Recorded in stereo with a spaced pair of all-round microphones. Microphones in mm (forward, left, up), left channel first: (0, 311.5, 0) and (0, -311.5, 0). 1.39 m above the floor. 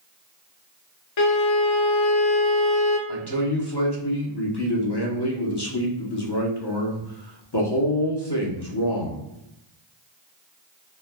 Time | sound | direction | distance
1.2 | a violin | 50° left (ahead or behind) | 0.6 m
3.1 | a man speaking | 40° left (ahead or behind) | 0.9 m